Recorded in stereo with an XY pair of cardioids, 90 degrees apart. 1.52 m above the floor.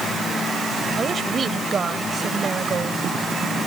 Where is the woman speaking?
50° right.